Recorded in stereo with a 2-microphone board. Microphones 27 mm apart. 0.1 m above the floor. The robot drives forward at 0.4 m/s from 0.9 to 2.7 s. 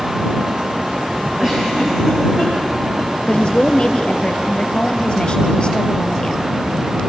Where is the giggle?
20° right (ahead or behind), 8 m.